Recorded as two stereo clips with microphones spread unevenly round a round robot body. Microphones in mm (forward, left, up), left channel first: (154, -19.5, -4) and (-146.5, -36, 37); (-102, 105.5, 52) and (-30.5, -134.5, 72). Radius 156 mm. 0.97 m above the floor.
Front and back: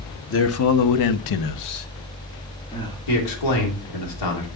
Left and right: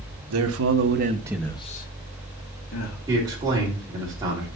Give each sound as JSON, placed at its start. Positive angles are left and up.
{"t": 0.3, "sound": "a man speaking", "azimuth_deg": -45, "distance_m": 1.2}
{"t": 3.1, "sound": "a man speaking", "azimuth_deg": 5, "distance_m": 2.5}